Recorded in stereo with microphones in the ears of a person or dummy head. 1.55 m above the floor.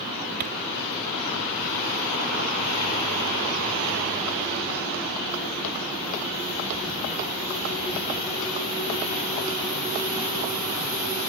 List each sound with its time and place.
0.4 s a thud: 40° right (ahead or behind)